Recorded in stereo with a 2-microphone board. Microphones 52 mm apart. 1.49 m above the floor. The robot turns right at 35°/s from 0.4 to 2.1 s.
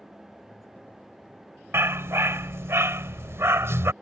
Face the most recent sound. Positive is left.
turn(degrees=-60)  # may be behind; listen again after turning